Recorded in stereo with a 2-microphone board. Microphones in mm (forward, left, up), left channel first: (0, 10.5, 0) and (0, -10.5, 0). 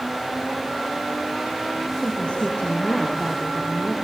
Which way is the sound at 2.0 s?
75° left (ahead or behind).